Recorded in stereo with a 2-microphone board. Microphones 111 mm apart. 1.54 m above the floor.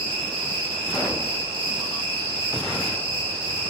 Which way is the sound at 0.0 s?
50° right (ahead or behind).